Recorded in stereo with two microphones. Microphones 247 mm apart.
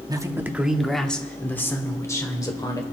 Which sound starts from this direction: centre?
A man speaking, at 0.1 s.